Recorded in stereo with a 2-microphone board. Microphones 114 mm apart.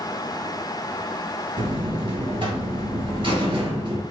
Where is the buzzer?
45° right (ahead or behind), 1.8 m.